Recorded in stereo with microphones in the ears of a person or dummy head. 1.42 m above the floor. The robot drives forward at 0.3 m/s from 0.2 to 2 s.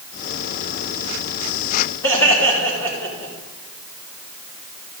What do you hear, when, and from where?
2.0 s laughter: 10° left (ahead or behind), 3.5 m